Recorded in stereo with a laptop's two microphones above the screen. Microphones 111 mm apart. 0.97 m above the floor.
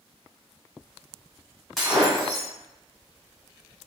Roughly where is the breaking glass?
Centre.